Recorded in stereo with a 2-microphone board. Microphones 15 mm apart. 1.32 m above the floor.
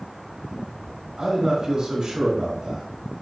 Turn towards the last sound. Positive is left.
turn(degrees=-75)  # may be behind; listen again after turning